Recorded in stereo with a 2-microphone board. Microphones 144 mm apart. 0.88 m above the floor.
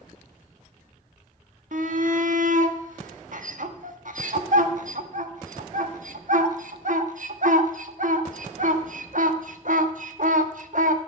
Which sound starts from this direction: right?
A shout, at 1.7 s.